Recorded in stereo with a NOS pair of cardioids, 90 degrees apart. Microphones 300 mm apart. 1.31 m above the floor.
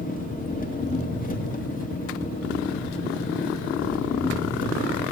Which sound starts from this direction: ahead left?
An engine running, at 0.0 s.